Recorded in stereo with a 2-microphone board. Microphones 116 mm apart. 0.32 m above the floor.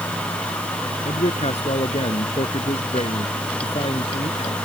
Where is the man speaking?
70° left (ahead or behind); by 4.5 s 60° left (ahead or behind).